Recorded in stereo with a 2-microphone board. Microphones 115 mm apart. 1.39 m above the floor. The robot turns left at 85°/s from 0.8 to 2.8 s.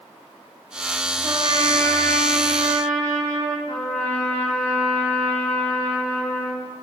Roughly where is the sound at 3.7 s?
Left.